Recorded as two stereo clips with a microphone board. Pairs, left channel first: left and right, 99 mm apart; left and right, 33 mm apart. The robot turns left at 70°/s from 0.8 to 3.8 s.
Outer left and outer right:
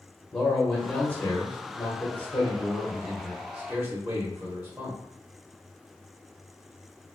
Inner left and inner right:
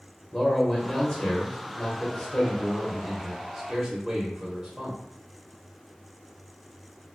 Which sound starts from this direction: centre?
A man speaking, at 0.3 s.